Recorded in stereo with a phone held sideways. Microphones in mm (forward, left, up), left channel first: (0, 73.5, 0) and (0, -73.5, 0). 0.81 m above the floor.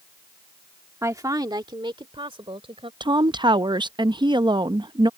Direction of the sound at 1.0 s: 20° right (ahead or behind).